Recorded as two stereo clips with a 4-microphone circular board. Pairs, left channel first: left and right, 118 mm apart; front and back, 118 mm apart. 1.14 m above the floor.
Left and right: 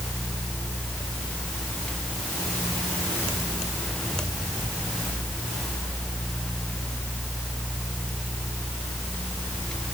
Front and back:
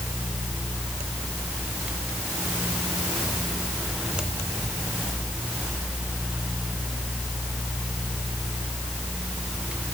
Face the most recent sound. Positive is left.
No sound to turn to.